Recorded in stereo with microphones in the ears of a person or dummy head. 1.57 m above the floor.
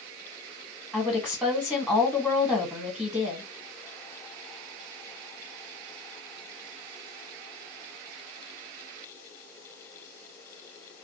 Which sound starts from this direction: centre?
A woman speaking, at 0.9 s.